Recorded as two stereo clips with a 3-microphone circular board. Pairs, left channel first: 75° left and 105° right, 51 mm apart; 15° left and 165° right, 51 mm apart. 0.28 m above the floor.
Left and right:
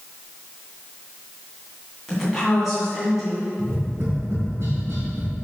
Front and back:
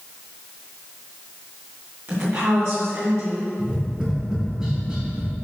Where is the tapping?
90° right, 2.5 m.